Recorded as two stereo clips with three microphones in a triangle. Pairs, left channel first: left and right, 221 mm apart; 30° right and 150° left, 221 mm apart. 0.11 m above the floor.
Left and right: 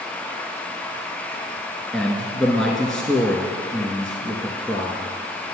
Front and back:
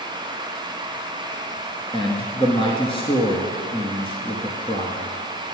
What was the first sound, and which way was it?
A man speaking, 5° left.